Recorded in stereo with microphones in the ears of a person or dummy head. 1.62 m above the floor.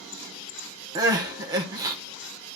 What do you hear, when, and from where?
0.9 s crying: 20° right (ahead or behind), 0.8 m